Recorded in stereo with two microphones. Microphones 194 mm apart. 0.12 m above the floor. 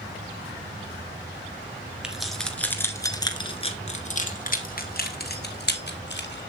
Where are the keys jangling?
5° right (ahead or behind), 1.4 m; by 6.4 s 60° left (ahead or behind), 2 m.